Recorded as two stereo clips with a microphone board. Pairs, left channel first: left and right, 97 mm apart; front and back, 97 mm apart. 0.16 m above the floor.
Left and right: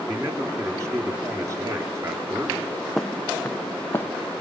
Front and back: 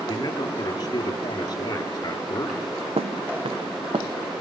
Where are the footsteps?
Straight behind, 0.5 m; by 4.1 s 155° left, 1.3 m.